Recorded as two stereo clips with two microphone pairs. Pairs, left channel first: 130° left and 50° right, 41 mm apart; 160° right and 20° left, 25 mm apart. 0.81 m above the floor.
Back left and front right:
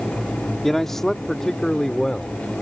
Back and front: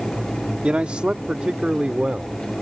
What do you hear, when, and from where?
0.6 s a man speaking: 50° left; by 2.4 s 55° left